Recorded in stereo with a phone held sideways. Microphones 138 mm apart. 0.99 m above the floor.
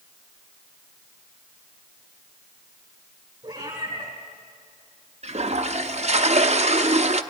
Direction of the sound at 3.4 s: 30° right (ahead or behind).